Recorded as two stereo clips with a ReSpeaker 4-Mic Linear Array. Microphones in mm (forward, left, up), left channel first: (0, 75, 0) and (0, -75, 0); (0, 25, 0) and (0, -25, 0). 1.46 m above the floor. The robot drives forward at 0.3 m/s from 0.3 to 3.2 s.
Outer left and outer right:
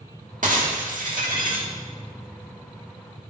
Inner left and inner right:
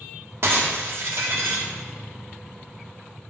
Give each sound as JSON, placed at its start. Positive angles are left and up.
{"t": 0.4, "sound": "breaking glass", "side_deg": -60, "distance_m": 1.7}